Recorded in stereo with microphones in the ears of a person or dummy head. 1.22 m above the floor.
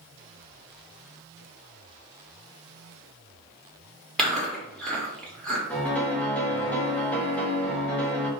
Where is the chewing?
Centre (ahead or behind), 1.2 m.